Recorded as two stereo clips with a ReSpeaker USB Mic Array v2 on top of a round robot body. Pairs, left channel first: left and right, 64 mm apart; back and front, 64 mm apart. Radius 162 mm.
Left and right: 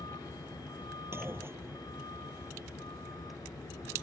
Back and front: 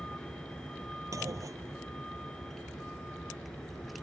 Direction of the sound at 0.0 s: 100° left.